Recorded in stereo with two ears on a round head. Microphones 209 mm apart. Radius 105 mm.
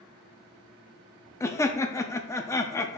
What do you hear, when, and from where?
1.4 s laughter: 15° left (ahead or behind), 0.6 m